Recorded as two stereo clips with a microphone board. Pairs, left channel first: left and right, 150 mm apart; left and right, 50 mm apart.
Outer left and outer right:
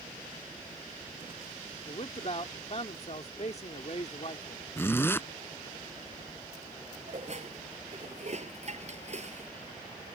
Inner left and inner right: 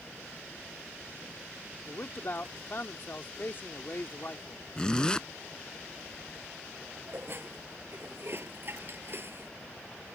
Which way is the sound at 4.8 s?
15° left (ahead or behind).